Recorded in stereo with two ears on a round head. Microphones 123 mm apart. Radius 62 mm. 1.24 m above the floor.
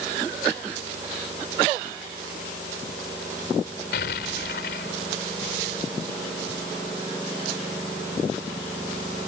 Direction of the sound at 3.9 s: 85° left.